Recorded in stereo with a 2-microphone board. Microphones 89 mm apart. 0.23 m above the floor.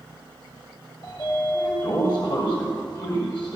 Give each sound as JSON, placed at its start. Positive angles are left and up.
{"t": 1.0, "sound": "a sliding door", "side_deg": 50, "distance_m": 6.0}